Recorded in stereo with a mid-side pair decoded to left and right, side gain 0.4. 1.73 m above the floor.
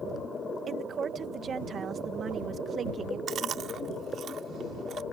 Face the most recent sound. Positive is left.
turn(degrees=-65)